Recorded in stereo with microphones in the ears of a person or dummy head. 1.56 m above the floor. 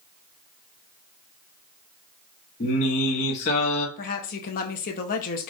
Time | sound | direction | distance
2.6 | singing | 40° left (ahead or behind) | 1.2 m
4.0 | a woman speaking | 45° left (ahead or behind) | 0.9 m